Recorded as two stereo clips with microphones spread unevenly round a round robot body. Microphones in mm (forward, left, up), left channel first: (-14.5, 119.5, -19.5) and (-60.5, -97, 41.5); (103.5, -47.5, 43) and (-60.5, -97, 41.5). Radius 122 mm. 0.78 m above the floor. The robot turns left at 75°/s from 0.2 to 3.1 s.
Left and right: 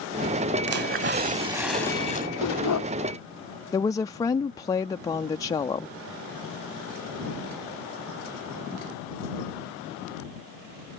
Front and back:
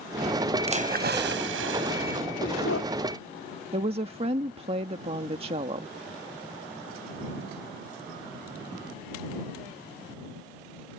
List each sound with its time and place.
0.7 s a splash: 110° right; by 2.3 s 130° left
2.4 s a dog barking: 75° left; by 2.9 s 40° left
3.7 s a woman speaking: 140° left